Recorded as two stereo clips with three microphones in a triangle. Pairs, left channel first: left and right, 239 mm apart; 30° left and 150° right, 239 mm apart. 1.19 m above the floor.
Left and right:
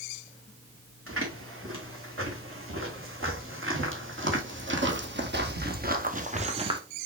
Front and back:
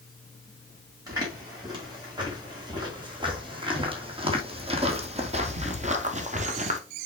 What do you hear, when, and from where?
1.1 s footsteps: 75° right, 4.5 m; by 6.8 s 140° right, 1.3 m